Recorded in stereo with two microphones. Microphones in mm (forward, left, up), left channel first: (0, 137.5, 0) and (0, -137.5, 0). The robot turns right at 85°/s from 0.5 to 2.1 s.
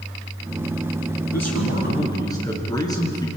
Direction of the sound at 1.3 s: 100° left.